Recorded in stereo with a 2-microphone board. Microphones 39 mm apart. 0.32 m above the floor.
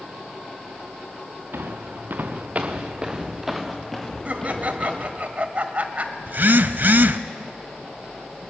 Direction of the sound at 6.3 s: 60° right (ahead or behind).